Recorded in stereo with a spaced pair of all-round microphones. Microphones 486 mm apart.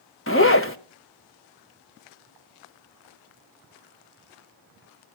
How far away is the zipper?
About 0.9 m.